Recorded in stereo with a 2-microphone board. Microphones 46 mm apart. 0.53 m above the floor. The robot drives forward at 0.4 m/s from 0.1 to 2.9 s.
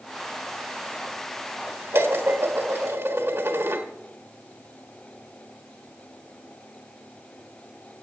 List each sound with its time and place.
1.9 s dishes clattering: 65° right (ahead or behind), 1.4 m